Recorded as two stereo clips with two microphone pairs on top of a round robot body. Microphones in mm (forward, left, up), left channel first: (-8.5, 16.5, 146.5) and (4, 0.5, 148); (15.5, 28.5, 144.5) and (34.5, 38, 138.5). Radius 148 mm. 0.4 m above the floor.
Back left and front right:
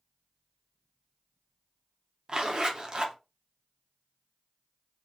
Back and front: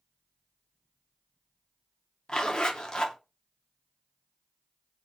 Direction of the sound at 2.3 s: 95° right.